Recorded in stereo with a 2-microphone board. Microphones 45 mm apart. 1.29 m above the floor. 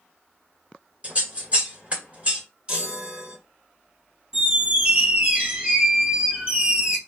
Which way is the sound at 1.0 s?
30° right (ahead or behind).